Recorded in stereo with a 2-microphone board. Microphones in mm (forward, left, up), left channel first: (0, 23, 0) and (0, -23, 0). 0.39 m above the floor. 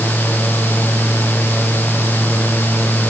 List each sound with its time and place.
Only background noise.